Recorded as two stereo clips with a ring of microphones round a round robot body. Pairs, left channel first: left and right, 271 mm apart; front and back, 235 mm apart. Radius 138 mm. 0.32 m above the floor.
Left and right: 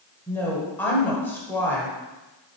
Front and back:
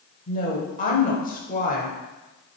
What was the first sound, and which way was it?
A woman speaking, 15° left.